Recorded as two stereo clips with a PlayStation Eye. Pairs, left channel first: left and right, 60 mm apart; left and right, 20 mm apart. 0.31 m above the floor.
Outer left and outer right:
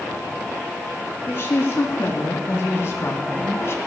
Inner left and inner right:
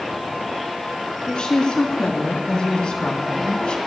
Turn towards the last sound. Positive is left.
turn(degrees=45)  # may be behind; listen again after turning